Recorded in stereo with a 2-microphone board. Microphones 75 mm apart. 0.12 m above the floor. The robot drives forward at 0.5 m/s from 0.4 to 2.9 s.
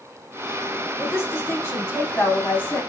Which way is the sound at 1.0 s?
30° left (ahead or behind).